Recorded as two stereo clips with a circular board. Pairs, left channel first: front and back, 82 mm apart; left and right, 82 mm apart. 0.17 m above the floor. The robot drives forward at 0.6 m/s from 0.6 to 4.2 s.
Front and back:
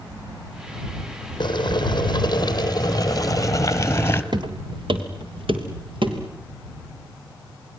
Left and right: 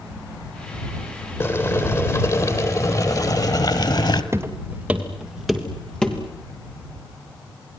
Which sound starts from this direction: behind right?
Footsteps, at 4.3 s.